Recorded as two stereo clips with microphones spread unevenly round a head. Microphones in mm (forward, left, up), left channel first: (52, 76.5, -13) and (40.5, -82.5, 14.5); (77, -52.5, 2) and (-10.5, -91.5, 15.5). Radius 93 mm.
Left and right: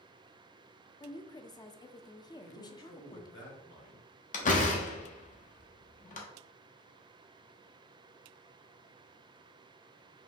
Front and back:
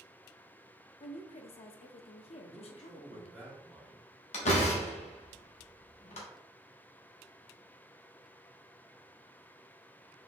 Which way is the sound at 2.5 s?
115° left.